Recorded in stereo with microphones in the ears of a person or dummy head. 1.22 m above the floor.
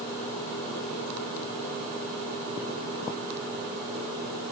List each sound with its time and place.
Only background noise.